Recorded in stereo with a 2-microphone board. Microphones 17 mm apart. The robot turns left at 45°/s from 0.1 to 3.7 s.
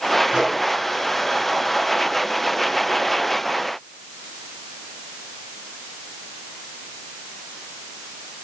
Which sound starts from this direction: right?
A microwave, at 0.3 s.